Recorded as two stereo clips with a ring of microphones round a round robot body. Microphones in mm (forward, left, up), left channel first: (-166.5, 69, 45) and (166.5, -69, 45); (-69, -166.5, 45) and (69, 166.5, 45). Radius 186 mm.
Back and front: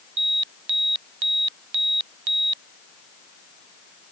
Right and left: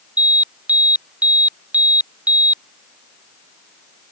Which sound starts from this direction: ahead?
An alarm, at 0.2 s.